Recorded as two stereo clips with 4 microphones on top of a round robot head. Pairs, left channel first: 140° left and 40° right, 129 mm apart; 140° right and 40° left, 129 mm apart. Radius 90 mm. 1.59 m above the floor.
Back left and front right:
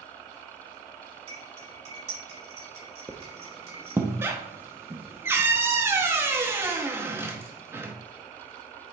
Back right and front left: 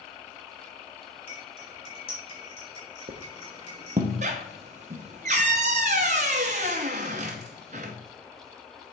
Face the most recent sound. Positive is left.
turn(degrees=25)